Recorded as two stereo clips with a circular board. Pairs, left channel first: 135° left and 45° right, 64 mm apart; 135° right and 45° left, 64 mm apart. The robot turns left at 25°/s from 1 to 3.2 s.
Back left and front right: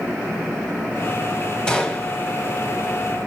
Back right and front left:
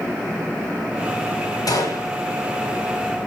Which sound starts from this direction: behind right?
A gunshot, at 1.7 s.